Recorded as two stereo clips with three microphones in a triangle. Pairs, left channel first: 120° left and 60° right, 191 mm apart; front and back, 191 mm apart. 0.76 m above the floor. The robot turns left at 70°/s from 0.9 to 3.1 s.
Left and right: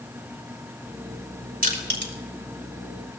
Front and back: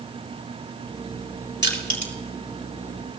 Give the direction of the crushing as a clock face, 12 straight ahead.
1 o'clock.